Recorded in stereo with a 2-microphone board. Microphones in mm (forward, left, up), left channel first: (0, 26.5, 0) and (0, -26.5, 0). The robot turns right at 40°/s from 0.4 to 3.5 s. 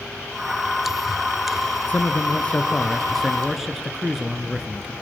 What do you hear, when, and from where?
1.9 s a man speaking: 125° left, 1.5 m; by 4.9 s 175° right, 1.5 m